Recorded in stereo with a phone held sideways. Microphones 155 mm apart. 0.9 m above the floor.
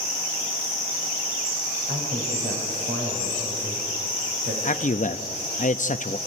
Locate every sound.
1.9 s a man speaking: 75° right (ahead or behind), 4.5 m
4.6 s a man speaking: 55° left (ahead or behind), 0.8 m